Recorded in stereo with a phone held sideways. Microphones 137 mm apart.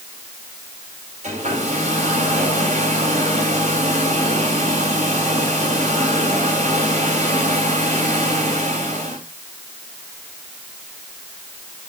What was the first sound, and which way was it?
A hair dryer, 55° right (ahead or behind).